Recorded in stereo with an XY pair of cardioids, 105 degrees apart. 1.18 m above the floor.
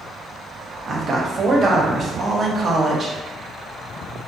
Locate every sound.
0.9 s a woman speaking: 40° right, 0.7 m